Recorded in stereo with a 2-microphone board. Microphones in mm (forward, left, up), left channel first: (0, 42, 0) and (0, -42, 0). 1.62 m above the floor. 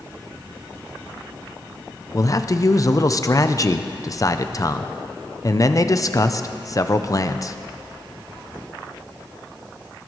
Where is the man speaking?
40° left (ahead or behind), 0.6 m.